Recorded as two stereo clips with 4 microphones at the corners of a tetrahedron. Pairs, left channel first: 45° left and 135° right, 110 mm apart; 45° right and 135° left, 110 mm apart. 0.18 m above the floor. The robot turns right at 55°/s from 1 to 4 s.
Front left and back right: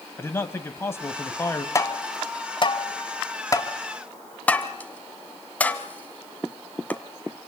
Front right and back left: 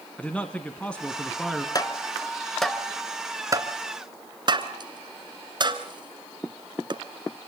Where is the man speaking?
20° left, 1.3 m; by 1.6 s 55° left, 1.3 m.